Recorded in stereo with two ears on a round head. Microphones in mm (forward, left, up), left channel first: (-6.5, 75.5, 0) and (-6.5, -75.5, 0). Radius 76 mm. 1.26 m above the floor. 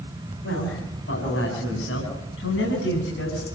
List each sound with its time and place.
0.4 s a man speaking: 85° left, 7 m